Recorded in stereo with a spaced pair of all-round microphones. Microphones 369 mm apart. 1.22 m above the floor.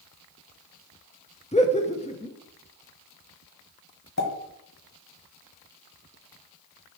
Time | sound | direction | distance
1.5 | laughter | 15° left (ahead or behind) | 0.8 m
4.2 | a pop | 45° left (ahead or behind) | 1.6 m